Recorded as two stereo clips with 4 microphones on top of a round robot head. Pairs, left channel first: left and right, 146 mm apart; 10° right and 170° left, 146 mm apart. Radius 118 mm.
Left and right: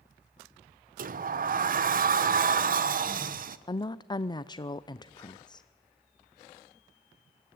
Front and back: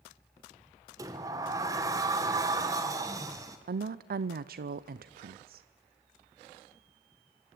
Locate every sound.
1.0 s a sliding door: 115° right, 1.2 m
3.7 s a woman speaking: 155° left, 0.6 m